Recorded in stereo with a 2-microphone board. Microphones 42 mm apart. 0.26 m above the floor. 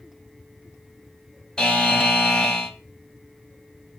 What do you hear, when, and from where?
1.6 s a buzzer: 20° left (ahead or behind), 0.8 m